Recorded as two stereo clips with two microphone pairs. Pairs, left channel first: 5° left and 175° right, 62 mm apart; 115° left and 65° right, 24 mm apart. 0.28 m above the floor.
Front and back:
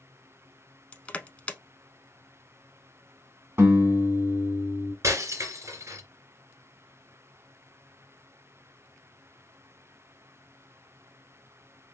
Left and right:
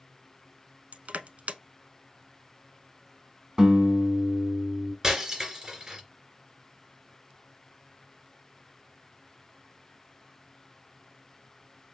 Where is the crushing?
65° right, 0.6 m.